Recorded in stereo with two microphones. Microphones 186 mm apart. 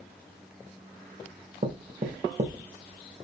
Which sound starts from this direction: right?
Knocking, at 1.6 s.